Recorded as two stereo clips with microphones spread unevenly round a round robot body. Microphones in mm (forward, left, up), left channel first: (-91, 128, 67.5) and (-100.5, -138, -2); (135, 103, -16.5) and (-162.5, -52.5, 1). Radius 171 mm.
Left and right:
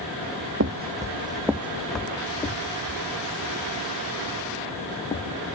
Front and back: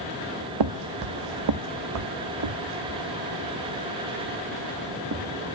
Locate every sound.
0.6 s footsteps: 145° right, 0.6 m; by 5.2 s 155° left, 3 m